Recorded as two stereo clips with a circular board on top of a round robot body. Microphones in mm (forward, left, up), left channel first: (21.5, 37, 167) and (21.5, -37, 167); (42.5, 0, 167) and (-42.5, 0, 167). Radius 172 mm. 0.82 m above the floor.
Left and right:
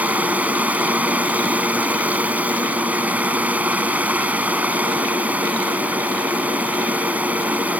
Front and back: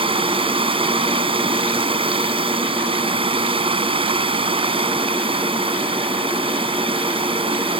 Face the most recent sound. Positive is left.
turn(degrees=-160)